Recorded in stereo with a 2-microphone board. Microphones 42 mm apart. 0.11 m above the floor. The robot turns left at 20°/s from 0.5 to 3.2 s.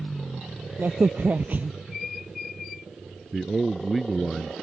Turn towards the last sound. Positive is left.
turn(degrees=0)  # may be behind; listen again after turning